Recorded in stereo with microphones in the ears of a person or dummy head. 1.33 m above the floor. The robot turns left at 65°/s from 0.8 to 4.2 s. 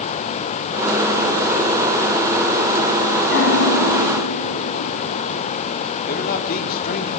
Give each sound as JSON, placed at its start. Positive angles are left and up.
{"t": 3.3, "sound": "a piano", "azimuth_deg": 110, "distance_m": 2.5}
{"t": 6.1, "sound": "a man speaking", "side_deg": 50, "distance_m": 3.5}